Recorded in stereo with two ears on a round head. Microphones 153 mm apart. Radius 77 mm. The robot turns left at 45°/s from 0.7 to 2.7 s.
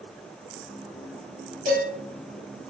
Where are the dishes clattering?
50° right (ahead or behind), 2.5 m; by 1.9 s 60° right (ahead or behind), 2.5 m.